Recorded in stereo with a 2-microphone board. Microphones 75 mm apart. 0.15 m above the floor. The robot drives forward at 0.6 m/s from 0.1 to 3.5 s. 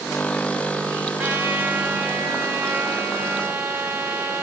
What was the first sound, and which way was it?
A trumpet, 20° right (ahead or behind).